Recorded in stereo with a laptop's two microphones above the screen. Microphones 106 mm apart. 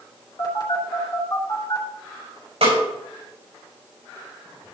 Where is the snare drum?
85° right, 6 m.